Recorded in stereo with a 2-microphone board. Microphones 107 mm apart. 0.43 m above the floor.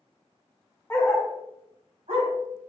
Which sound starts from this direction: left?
A dog barking, at 0.9 s.